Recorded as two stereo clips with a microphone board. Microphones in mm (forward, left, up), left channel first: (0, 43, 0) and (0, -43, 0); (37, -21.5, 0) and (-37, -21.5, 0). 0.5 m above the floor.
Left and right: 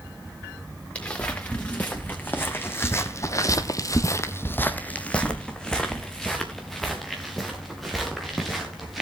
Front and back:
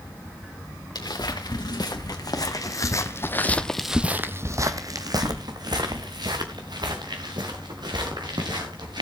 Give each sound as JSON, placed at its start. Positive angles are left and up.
{"t": 0.9, "sound": "footsteps", "azimuth_deg": 15, "distance_m": 2.5}